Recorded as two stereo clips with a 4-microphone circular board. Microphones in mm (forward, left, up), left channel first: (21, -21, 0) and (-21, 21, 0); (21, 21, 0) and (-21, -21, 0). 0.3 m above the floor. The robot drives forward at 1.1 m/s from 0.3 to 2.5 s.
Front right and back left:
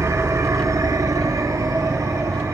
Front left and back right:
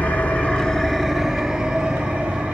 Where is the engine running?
105° left, 1.2 m; by 2.5 s 160° left, 3 m.